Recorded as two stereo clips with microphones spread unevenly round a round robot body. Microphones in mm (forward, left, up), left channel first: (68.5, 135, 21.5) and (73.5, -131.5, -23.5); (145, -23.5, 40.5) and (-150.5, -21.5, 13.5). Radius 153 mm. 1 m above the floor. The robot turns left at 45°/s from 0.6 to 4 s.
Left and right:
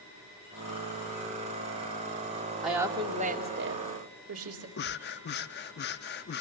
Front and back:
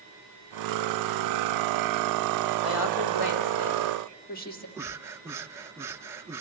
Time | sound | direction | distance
2.6 | a woman speaking | straight ahead | 2.5 m
4.8 | breathing | 95° left | 0.5 m